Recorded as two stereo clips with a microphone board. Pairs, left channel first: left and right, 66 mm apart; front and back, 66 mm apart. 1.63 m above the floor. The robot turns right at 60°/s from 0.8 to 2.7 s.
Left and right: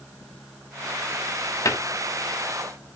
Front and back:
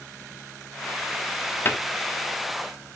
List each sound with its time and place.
1.6 s a cupboard door: 55° left, 1.0 m; by 1.8 s 60° left, 1.0 m